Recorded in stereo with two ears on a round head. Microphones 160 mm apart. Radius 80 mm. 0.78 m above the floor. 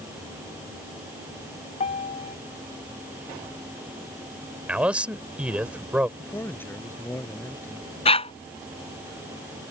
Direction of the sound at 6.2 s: 10° left (ahead or behind).